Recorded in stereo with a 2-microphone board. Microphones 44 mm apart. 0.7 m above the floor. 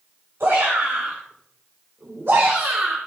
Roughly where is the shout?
Right.